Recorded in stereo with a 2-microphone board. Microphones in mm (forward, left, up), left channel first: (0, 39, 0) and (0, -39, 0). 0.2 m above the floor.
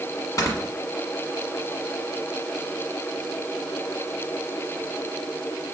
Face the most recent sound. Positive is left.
turn(degrees=45)  # may be behind; listen again after turning